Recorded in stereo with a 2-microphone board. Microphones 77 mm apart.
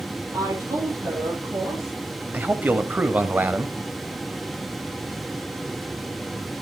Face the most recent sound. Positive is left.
turn(degrees=-25)  # may be behind; listen again after turning